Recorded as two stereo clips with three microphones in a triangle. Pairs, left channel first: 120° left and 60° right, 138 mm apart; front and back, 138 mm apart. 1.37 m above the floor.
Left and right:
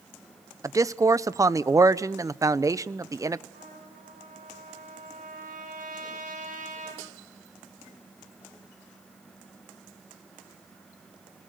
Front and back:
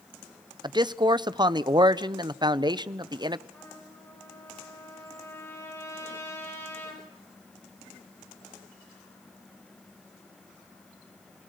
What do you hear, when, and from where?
0.6 s a man speaking: 125° right, 0.7 m
3.5 s a trumpet: 70° right, 6 m